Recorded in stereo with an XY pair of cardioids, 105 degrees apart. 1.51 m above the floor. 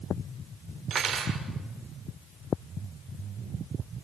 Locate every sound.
0.9 s cutlery clinking: 55° right, 3 m